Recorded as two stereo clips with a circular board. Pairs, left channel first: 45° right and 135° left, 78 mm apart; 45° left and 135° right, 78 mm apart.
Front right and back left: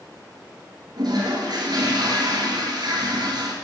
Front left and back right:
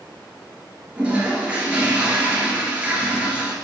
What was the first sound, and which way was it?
A toilet flushing, 150° left.